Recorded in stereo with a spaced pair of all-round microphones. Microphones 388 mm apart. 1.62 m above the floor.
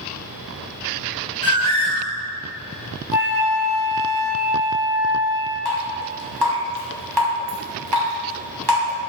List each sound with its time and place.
1.4 s a bird: 20° right (ahead or behind), 2.5 m
3.1 s a flute: 55° right (ahead or behind), 3 m
5.7 s dripping: 75° right (ahead or behind), 1.9 m